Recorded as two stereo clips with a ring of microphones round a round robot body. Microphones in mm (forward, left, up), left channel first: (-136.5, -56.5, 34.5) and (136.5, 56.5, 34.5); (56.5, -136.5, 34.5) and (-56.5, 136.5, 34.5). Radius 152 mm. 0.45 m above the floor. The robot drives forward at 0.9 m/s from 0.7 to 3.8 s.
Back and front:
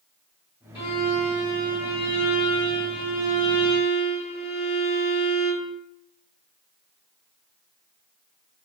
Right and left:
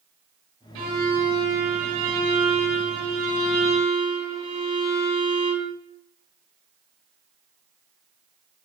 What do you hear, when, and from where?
0.8 s a violin: 130° left, 2.5 m; by 5.7 s 155° left, 4.5 m